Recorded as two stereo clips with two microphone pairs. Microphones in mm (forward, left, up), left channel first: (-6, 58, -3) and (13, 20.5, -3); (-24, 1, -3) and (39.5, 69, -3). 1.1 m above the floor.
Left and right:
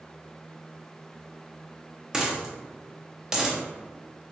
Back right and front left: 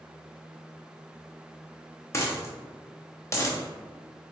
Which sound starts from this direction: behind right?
A dropped coin, at 2.1 s.